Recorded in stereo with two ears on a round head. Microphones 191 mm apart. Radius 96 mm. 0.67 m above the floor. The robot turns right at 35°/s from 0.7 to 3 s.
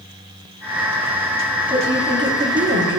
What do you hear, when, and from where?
1.7 s a woman speaking: 150° right, 1.6 m; by 3.0 s 105° right, 1.6 m